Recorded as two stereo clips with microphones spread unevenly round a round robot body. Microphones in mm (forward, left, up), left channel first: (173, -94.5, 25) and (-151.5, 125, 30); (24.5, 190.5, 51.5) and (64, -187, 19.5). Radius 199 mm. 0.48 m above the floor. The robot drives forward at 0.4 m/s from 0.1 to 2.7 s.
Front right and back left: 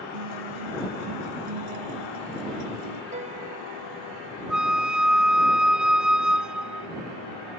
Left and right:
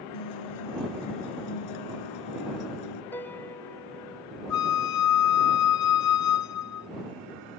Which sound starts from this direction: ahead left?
A flute, at 4.5 s.